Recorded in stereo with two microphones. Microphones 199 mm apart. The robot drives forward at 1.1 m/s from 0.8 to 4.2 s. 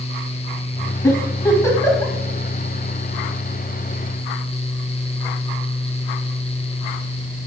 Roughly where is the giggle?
Centre.